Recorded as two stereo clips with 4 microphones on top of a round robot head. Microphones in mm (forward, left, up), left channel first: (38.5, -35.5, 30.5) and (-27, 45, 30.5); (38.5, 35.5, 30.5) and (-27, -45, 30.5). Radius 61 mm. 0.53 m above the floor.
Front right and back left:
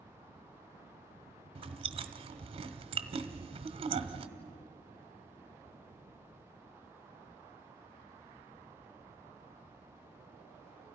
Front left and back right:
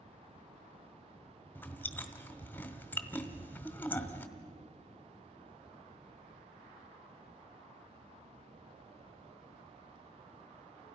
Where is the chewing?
120° left, 1.5 m.